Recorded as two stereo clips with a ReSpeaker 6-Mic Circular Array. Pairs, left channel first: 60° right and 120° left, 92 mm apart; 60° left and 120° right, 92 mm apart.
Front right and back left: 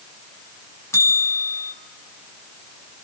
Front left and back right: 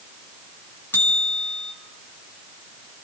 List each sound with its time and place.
0.9 s a bell: 5° right, 1.7 m